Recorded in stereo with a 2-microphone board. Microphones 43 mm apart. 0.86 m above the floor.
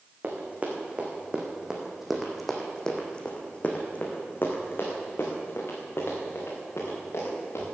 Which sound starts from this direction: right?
Running footsteps, at 0.2 s.